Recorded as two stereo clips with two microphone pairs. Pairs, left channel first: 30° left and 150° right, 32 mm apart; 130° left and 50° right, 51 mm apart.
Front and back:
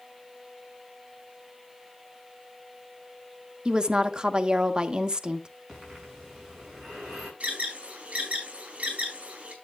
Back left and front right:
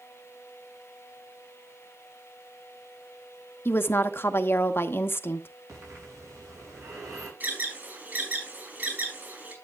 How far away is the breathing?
About 7.5 m.